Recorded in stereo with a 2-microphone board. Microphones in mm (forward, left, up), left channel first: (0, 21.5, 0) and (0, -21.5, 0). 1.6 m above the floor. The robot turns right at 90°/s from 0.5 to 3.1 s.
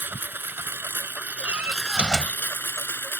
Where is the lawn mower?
120° right; by 3.2 s 115° left.